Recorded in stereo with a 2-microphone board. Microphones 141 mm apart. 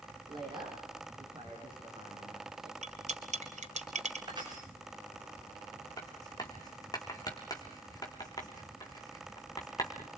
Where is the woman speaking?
30° right (ahead or behind), 7 m.